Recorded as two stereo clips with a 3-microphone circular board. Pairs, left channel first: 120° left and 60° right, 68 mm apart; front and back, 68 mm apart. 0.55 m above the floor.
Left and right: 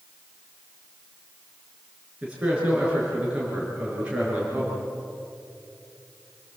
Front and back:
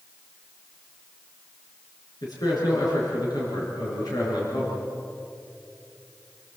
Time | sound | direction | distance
2.2 | a man speaking | 15° left | 7 m